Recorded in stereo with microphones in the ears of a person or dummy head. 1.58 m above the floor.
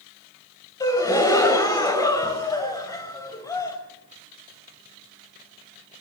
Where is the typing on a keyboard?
No typing on a keyboard in this recording.